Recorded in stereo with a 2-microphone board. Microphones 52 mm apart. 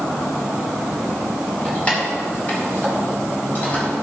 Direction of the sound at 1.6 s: 25° left (ahead or behind).